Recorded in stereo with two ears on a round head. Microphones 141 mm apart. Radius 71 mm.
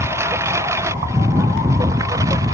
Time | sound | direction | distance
0.0 | a lawn mower | 15° right (ahead or behind) | ?